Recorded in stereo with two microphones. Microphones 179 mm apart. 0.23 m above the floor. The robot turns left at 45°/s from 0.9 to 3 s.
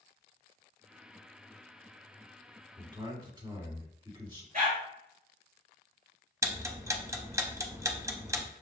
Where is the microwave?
No microwave in this recording.